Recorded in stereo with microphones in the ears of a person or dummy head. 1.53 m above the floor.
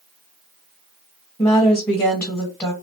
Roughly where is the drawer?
No drawer in this recording.